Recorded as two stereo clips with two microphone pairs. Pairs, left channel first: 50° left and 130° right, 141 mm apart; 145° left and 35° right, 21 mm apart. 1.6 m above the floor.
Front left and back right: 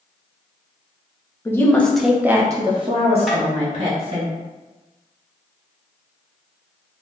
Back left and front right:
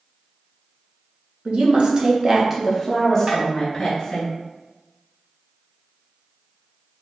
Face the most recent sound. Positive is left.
turn(degrees=-40)